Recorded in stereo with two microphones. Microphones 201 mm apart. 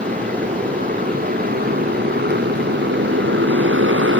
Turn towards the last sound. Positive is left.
turn(degrees=-90)